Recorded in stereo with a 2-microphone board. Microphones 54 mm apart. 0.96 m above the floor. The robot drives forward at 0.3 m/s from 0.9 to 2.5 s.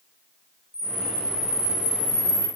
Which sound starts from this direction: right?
A camera shutter, at 0.7 s.